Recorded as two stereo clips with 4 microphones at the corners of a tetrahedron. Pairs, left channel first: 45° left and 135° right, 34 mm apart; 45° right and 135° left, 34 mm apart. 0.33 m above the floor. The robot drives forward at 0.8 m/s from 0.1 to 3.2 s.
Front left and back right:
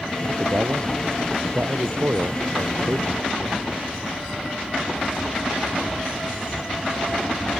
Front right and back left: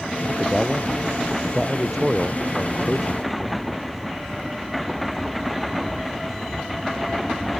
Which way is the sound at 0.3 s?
135° right.